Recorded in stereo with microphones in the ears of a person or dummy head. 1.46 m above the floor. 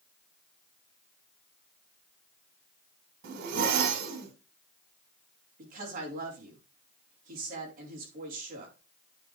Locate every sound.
3.2 s a zipper: 60° right (ahead or behind), 2.5 m
5.6 s a woman speaking: 50° right (ahead or behind), 4.5 m